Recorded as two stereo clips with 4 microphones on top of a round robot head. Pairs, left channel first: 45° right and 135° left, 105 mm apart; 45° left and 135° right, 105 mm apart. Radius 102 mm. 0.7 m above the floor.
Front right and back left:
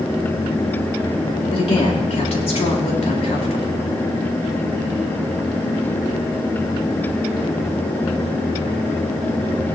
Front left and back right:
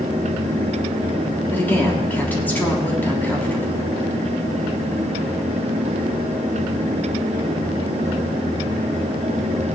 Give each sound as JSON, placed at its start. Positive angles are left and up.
{"t": 1.5, "sound": "a woman speaking", "azimuth_deg": -30, "distance_m": 3.5}